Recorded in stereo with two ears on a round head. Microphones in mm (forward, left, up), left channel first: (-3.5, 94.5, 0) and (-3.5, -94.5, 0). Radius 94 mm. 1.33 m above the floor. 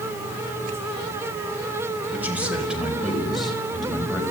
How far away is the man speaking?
About 4 m.